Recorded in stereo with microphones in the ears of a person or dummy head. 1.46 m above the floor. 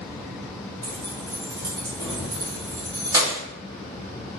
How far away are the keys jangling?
About 0.8 m.